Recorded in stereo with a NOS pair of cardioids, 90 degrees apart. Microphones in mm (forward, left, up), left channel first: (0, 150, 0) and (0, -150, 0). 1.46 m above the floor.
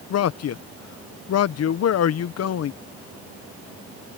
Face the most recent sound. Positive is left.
turn(degrees=55)